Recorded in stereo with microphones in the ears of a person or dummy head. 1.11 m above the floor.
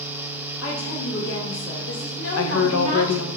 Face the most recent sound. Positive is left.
turn(degrees=70)  # may be behind; listen again after turning